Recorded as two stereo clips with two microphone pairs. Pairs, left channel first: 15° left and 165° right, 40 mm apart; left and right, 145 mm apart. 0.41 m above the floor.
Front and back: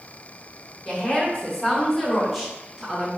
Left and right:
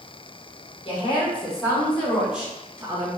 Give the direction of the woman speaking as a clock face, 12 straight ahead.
10 o'clock.